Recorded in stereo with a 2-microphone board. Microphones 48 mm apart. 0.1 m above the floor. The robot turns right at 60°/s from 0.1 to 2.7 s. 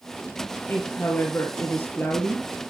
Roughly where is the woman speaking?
Ahead left.